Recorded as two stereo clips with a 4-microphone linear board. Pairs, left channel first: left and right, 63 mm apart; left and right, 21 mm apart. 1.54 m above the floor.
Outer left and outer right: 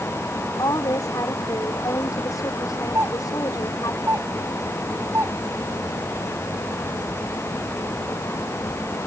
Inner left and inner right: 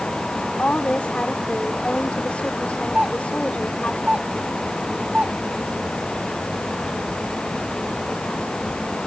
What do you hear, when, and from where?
0.6 s a woman speaking: 75° left (ahead or behind)
3.0 s a doorbell: 45° right (ahead or behind)